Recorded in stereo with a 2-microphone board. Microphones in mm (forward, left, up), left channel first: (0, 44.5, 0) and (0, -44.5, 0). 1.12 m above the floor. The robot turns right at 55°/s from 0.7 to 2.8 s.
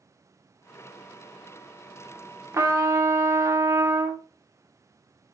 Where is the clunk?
No clunk in this recording.